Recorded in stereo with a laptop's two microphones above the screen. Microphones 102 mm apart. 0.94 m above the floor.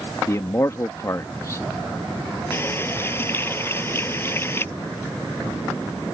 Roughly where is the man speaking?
Left.